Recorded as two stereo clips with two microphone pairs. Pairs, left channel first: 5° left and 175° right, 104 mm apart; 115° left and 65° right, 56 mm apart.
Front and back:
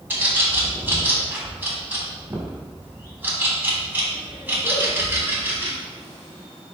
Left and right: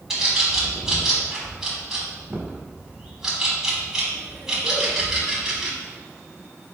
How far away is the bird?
About 0.9 m.